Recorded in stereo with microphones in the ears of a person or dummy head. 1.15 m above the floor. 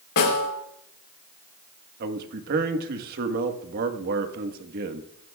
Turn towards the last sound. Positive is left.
turn(degrees=-50)  # may be behind; listen again after turning